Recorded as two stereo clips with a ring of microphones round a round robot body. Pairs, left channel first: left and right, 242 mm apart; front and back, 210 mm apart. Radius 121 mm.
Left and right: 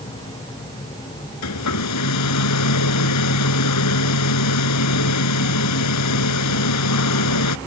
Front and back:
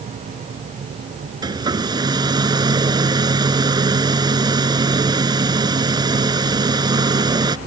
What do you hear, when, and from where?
1.4 s a hair dryer: 110° left